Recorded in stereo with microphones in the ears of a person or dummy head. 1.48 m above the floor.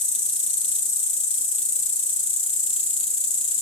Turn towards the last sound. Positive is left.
turn(degrees=30)  # may be behind; listen again after turning